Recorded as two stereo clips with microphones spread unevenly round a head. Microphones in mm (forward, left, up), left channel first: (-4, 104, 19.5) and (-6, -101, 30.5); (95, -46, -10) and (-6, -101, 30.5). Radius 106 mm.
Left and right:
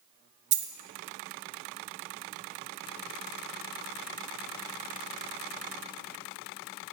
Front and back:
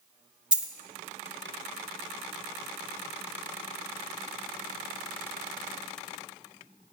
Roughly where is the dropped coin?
Right.